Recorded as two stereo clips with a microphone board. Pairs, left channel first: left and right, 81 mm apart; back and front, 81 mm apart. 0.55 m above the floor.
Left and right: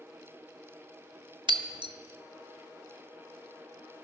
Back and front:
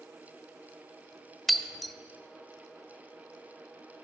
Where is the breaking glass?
90° right, 0.7 m.